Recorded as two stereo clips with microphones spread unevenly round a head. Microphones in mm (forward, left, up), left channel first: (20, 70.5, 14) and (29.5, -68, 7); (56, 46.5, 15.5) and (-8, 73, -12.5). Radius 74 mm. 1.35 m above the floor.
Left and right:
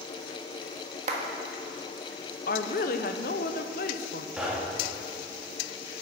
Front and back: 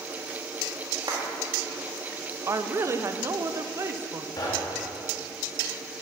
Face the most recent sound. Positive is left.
turn(degrees=0)